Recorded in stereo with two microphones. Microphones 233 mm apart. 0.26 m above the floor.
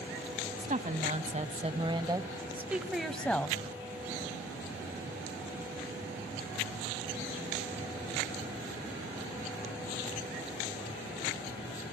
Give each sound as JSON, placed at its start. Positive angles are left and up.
{"t": 0.6, "sound": "a woman speaking", "side_deg": -35, "distance_m": 1.5}